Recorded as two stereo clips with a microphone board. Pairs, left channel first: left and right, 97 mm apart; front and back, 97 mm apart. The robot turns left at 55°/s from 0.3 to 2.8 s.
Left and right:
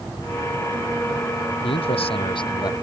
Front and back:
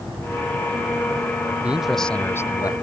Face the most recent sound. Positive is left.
turn(degrees=40)